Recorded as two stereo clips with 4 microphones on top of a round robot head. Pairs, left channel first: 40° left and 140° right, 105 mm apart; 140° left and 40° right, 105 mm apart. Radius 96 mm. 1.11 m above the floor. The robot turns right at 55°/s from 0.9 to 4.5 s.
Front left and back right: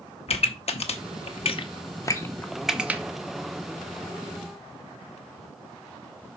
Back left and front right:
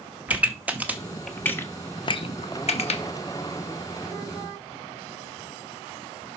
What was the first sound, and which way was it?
A pop, 35° left.